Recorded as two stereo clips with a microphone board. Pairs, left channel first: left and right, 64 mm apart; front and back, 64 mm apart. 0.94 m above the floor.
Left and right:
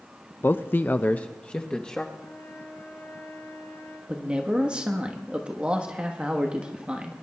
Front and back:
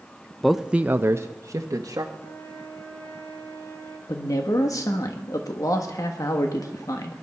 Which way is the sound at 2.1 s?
40° left.